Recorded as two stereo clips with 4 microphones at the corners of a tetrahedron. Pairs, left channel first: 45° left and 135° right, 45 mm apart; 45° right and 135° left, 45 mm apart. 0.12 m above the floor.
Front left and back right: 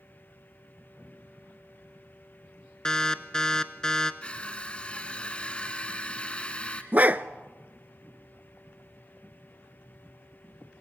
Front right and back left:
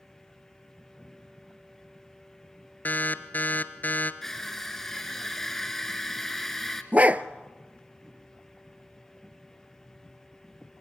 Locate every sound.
2.9 s an alarm: 25° right, 1.0 m
4.2 s crushing: 30° left, 1.6 m
6.9 s a dog barking: 175° right, 0.6 m